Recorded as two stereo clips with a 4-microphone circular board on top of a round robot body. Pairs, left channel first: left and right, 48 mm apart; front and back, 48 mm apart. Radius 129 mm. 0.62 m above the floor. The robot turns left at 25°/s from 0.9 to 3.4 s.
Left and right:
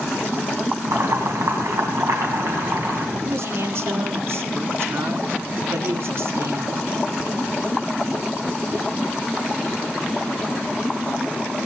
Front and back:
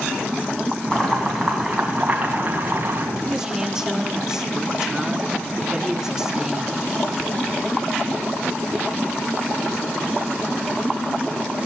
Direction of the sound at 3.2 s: 100° right.